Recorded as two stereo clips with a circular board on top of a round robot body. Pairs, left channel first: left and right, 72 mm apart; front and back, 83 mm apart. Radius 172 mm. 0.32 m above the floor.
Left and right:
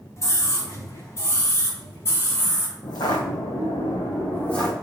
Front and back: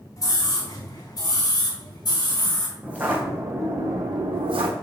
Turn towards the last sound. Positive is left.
turn(degrees=170)